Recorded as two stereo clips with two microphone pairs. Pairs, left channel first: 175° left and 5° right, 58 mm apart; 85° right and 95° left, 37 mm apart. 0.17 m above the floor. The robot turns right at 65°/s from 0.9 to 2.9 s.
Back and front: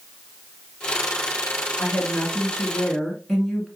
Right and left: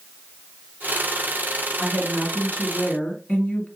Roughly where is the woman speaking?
Behind.